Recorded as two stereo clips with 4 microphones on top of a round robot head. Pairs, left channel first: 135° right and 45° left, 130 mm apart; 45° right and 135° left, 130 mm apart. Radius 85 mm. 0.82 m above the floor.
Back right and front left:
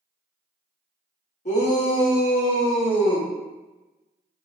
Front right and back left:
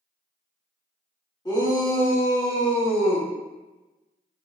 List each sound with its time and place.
1.4 s a shout: 105° right, 2 m; by 3.3 s 85° right, 3.5 m